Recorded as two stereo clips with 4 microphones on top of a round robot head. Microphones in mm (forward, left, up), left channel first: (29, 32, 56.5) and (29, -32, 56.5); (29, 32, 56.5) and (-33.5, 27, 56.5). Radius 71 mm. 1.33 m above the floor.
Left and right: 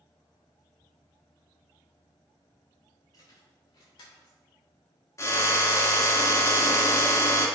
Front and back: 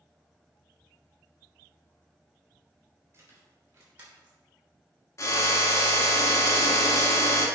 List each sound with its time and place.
3.1 s keys jangling: 135° left, 3.5 m; by 4.4 s 115° left, 3 m
5.2 s a drill: 50° left, 1.8 m